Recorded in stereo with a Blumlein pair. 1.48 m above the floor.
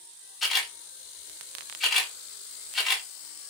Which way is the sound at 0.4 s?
15° left.